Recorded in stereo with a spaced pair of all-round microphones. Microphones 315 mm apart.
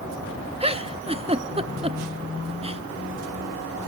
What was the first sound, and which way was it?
A giggle, 20° right (ahead or behind).